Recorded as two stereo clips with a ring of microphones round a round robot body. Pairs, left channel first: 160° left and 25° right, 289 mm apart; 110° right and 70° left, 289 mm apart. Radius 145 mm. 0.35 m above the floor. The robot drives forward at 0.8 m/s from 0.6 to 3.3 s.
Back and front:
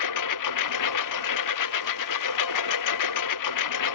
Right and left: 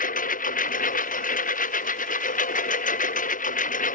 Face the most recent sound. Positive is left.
turn(degrees=-175)